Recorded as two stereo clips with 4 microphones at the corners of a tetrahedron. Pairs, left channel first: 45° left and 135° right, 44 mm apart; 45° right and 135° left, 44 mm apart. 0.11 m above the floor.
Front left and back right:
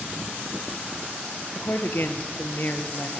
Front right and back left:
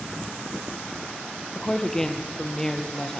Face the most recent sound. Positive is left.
turn(degrees=30)